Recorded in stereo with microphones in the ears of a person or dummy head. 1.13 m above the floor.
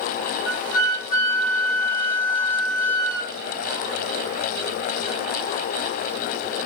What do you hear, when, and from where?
0.5 s a flute: 10° right (ahead or behind), 1.4 m